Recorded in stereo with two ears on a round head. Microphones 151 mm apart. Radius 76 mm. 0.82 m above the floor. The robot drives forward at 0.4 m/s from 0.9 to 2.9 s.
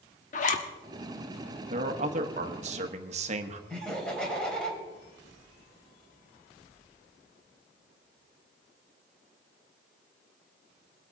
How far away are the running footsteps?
I don't hear running footsteps.